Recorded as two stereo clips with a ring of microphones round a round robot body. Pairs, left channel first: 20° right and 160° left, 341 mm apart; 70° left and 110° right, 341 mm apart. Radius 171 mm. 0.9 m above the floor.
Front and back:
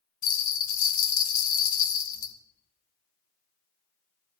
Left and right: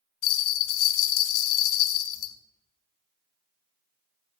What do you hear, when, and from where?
0.2 s a bell: 45° left, 1.3 m